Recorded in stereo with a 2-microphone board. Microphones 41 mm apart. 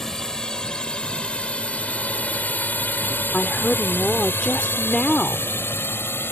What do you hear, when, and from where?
0.0 s a drone: 15° left (ahead or behind); by 6.3 s 75° left (ahead or behind)
3.3 s a woman speaking: 25° left (ahead or behind)